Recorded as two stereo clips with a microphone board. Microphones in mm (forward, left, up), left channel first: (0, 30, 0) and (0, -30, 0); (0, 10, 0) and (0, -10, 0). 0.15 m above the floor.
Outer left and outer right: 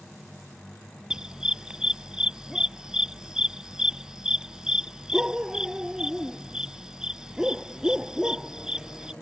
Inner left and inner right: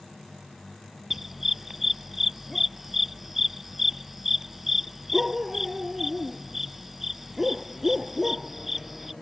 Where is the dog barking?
15° right (ahead or behind).